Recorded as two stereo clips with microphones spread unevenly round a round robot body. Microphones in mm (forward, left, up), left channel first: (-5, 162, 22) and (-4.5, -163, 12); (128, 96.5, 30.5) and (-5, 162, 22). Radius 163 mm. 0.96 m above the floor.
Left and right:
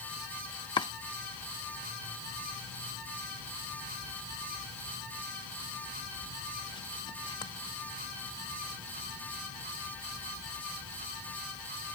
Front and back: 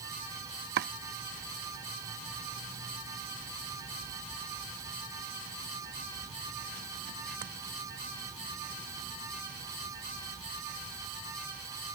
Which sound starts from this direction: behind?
Chopping, at 0.8 s.